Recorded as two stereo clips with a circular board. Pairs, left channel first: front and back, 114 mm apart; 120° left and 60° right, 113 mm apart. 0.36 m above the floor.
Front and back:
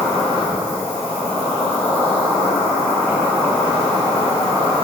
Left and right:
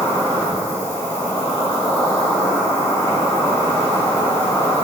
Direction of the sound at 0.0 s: 65° left.